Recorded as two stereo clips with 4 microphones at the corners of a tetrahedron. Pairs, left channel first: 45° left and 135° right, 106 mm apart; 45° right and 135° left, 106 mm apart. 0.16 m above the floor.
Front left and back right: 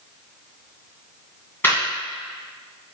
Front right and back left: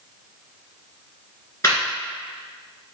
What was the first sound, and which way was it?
Laughter, 10° right.